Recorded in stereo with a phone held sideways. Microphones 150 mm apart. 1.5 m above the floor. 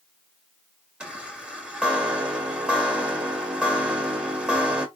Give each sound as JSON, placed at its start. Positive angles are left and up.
{"t": 1.0, "sound": "a chime", "side_deg": -5, "distance_m": 1.5}